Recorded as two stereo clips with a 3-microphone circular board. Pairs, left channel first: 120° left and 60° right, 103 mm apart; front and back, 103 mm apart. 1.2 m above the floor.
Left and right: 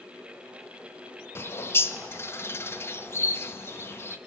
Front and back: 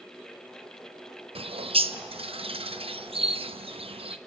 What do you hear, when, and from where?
1.4 s a bird: 175° right, 0.8 m